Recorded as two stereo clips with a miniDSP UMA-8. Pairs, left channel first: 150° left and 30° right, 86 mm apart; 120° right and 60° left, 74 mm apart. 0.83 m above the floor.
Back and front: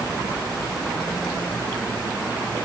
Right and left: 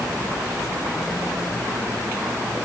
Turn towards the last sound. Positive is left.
No sound to turn to.